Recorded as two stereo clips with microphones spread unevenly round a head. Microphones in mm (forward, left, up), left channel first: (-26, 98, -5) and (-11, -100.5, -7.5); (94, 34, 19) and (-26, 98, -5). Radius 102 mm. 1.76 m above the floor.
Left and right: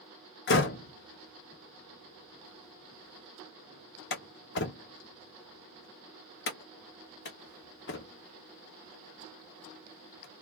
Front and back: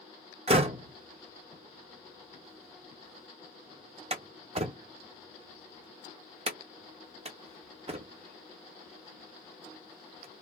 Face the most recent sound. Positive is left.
turn(degrees=110)